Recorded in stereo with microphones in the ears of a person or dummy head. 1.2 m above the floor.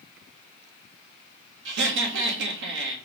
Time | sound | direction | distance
1.6 | laughter | 70° right (ahead or behind) | 1.3 m